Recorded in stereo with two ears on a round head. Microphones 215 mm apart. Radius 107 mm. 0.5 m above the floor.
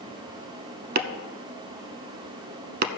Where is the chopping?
40° right (ahead or behind), 0.9 m.